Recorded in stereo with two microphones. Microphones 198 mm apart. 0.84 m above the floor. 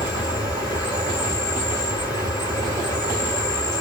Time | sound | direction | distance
0.0 | an insect | 20° left (ahead or behind) | 2 m